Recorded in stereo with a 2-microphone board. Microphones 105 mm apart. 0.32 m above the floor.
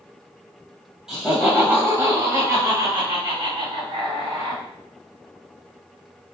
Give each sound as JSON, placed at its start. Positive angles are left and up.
{"t": 1.1, "sound": "laughter", "side_deg": -5, "distance_m": 1.5}